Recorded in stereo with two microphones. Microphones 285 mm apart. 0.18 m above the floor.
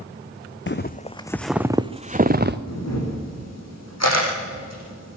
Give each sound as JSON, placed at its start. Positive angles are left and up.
{"t": 0.7, "sound": "footsteps", "side_deg": 40, "distance_m": 0.7}
{"t": 2.7, "sound": "a camera shutter", "side_deg": 65, "distance_m": 7.0}